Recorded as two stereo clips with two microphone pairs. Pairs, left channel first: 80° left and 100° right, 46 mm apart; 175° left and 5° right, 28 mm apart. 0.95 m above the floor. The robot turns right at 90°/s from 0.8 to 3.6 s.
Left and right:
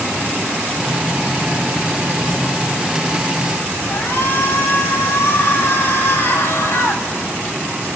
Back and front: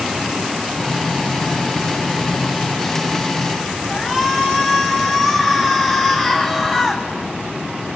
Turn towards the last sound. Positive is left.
turn(degrees=105)